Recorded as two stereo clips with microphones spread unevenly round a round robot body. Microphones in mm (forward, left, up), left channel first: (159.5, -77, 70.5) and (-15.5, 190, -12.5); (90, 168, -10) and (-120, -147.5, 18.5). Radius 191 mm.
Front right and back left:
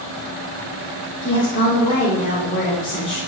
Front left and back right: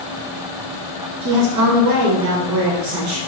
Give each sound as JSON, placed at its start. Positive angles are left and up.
{"t": 1.2, "sound": "a woman speaking", "azimuth_deg": -140, "distance_m": 1.4}